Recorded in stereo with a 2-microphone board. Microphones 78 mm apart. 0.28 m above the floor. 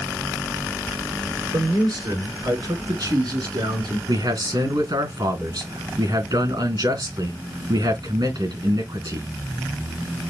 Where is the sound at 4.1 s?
65° right (ahead or behind), 3.5 m.